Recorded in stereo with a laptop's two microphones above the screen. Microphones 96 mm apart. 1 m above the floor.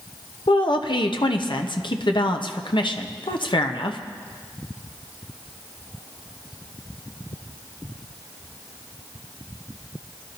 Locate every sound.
0.5 s a woman speaking: 55° left (ahead or behind), 0.9 m